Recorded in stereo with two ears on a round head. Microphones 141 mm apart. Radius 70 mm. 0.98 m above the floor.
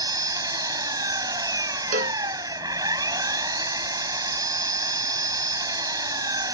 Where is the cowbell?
55° right (ahead or behind).